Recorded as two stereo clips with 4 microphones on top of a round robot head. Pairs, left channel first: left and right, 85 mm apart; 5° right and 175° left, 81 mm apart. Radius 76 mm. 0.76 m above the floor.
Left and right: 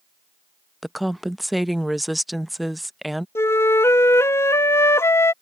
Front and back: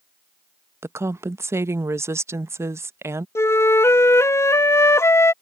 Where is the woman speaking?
Straight behind.